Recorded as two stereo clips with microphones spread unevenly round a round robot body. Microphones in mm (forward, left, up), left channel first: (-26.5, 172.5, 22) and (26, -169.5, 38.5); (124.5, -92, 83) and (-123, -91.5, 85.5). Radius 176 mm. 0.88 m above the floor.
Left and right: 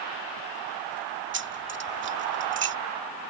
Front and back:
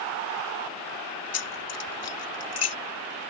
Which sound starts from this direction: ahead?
Keys jangling, at 1.3 s.